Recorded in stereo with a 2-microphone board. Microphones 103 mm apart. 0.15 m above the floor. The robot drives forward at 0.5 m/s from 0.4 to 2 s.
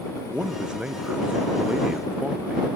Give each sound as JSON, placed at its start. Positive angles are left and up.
{"t": 0.3, "sound": "a man speaking", "side_deg": -10}